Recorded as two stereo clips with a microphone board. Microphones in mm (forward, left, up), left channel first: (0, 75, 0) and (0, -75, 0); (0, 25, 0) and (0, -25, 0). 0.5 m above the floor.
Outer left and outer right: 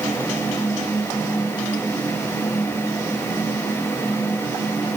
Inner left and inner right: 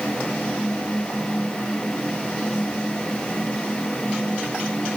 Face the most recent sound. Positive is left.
No sound to turn to.